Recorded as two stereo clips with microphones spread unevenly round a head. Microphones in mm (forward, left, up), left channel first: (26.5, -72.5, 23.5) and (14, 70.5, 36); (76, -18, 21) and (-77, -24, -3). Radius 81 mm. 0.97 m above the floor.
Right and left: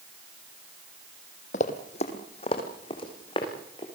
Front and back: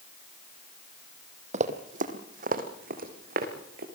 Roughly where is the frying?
No frying in this recording.